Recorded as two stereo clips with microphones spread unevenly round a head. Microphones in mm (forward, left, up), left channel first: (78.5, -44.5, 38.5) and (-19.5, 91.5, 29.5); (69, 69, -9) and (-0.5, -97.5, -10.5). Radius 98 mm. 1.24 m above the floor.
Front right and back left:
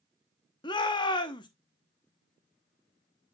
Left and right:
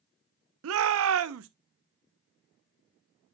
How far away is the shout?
About 0.7 m.